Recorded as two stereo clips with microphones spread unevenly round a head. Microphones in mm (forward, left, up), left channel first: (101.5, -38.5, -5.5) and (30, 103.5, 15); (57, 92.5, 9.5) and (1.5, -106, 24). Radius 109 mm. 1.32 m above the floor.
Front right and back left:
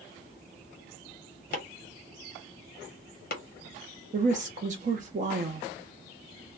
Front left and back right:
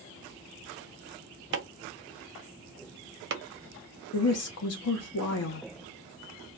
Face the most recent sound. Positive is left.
turn(degrees=70)